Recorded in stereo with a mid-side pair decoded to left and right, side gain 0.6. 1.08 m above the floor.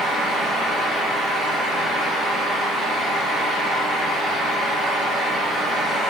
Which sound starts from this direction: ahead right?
A fan, at 0.0 s.